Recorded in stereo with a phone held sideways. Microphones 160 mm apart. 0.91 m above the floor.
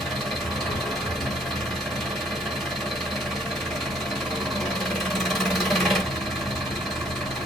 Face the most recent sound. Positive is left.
turn(degrees=0)  # may be behind; listen again after turning